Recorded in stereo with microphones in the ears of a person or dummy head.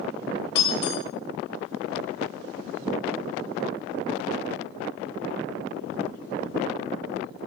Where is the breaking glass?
35° left (ahead or behind), 3 m.